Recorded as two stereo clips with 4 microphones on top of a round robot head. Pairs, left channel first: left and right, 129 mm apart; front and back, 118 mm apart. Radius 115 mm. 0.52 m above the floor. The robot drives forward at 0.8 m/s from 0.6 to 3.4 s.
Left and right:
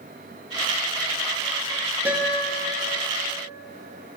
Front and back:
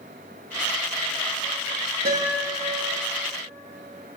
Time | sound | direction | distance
2.0 | a guitar | 165° right | 6.5 m